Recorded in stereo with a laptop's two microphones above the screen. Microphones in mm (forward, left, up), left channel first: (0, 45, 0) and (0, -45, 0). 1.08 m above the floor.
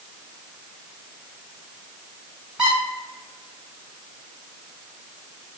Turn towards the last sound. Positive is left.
turn(degrees=-5)  # may be behind; listen again after turning